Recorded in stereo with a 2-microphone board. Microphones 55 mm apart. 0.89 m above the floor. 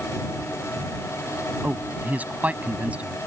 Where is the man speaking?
30° right (ahead or behind); by 3.2 s 25° right (ahead or behind).